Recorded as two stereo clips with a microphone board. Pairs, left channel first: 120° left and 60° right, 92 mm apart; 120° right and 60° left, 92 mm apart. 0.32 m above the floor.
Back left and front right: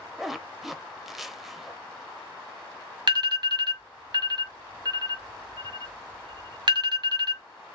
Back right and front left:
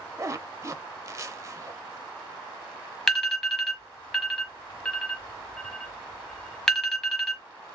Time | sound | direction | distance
0.2 | a zipper | 25° left | 0.5 m
3.1 | an alarm | 35° right | 1.3 m